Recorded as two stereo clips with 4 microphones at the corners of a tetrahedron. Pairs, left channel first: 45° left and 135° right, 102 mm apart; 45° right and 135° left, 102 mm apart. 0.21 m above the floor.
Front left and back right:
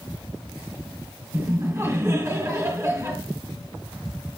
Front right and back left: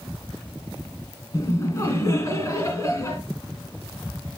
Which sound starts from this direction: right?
Laughter, at 1.3 s.